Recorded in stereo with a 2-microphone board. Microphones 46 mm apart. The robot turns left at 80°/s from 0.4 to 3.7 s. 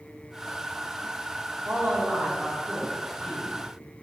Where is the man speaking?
70° right, 1.5 m; by 3.5 s 145° left, 1.5 m.